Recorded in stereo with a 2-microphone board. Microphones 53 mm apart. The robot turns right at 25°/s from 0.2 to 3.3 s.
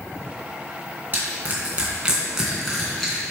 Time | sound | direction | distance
1.1 | crushing | 40° right (ahead or behind) | 3 m